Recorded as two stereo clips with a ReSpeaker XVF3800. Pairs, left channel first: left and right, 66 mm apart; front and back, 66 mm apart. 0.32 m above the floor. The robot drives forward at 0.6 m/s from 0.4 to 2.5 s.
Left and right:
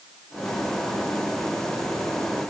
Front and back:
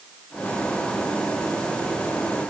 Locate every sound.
Only background noise.